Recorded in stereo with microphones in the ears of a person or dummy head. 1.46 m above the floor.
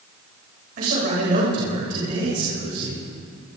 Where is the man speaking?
45° right (ahead or behind), 7 m.